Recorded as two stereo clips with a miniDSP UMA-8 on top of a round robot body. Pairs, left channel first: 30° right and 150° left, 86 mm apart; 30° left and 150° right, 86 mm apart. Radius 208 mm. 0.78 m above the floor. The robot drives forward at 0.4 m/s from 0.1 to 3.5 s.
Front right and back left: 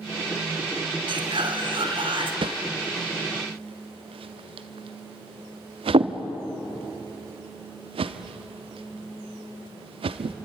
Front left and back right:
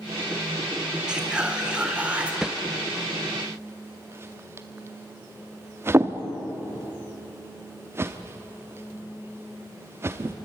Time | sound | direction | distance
1.1 | whispering | 130° left | 3.5 m
2.4 | a whoosh | 125° left | 0.7 m